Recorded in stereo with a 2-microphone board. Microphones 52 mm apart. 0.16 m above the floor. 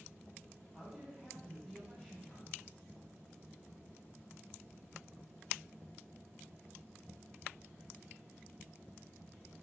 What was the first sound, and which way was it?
A man speaking, 20° right (ahead or behind).